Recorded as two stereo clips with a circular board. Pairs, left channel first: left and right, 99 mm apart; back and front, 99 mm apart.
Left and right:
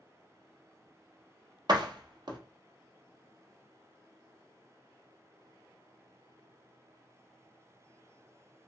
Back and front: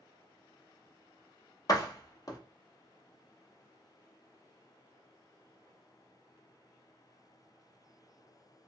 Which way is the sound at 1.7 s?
130° right.